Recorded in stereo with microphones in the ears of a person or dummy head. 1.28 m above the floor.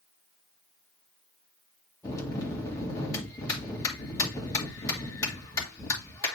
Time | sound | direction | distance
2.0 | a bell | 15° left (ahead or behind) | 2 m